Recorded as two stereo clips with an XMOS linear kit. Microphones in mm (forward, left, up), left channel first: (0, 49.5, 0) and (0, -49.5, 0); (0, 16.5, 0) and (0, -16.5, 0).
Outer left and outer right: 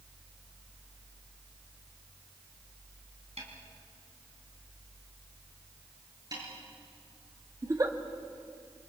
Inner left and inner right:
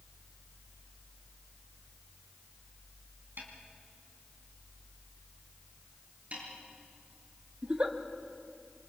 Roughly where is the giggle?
Right.